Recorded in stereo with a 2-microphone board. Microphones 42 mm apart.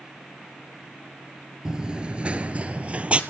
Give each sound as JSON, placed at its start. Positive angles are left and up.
{"t": 1.6, "sound": "running footsteps", "side_deg": -20, "distance_m": 1.2}